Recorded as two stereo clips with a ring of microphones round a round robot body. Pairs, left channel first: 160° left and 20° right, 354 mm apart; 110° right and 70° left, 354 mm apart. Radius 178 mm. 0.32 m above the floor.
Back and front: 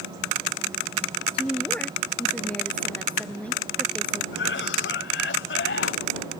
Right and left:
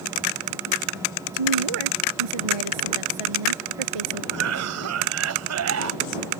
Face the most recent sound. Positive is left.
turn(degrees=105)